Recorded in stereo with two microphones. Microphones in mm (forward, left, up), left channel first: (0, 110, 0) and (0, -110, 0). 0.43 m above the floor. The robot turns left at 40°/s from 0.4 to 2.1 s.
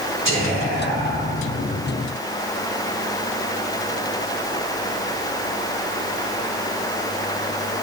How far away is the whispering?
About 2.5 m.